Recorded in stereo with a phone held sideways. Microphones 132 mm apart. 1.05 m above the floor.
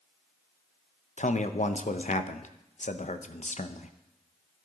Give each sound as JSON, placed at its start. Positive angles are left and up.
{"t": 1.2, "sound": "a man speaking", "side_deg": 65, "distance_m": 0.7}